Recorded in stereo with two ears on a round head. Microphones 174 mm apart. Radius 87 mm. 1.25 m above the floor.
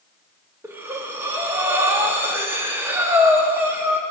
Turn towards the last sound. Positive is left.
turn(degrees=-10)  # may be behind; listen again after turning